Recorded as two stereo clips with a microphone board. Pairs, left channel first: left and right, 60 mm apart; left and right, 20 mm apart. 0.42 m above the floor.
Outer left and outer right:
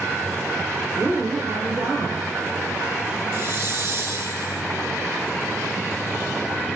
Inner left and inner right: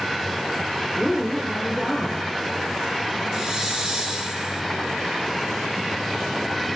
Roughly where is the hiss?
Right.